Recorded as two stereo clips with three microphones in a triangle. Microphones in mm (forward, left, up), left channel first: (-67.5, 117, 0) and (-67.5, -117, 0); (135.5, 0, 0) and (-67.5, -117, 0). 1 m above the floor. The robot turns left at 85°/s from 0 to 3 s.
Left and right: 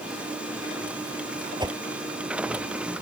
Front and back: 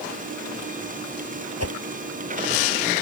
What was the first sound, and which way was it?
A whoosh, 160° right.